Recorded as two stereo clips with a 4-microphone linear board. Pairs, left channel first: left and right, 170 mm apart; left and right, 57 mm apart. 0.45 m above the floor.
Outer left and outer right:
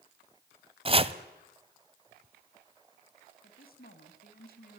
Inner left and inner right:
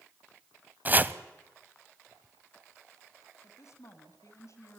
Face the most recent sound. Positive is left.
turn(degrees=60)  # may be behind; listen again after turning